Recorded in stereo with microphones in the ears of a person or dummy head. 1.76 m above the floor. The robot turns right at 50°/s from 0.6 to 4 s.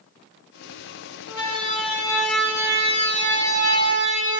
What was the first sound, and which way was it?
A siren, 60° left (ahead or behind).